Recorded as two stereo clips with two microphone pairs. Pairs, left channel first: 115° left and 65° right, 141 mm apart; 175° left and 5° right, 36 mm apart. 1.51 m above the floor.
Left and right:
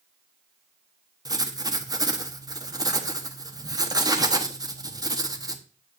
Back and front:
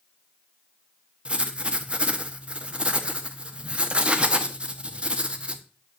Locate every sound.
1.2 s writing: 30° right, 1.0 m